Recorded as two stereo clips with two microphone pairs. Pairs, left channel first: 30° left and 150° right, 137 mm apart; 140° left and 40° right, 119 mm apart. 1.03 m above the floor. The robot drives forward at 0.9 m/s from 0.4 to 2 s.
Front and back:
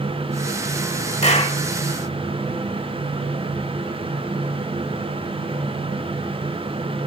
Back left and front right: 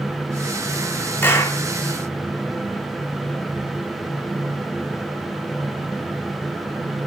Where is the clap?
70° left, 2.0 m; by 1.6 s 75° left, 1.9 m.